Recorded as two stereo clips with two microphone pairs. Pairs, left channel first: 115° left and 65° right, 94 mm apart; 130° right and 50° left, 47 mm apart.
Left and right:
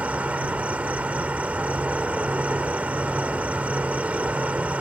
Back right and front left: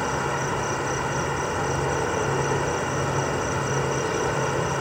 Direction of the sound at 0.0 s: 30° right.